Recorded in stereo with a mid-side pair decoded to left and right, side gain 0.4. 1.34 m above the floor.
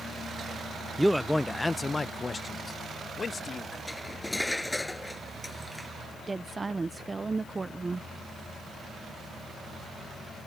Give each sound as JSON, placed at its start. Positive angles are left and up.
{"t": 1.0, "sound": "a man speaking", "azimuth_deg": -10}
{"t": 3.9, "sound": "cutlery clinking", "azimuth_deg": 10}
{"t": 6.2, "sound": "a woman speaking", "azimuth_deg": -30}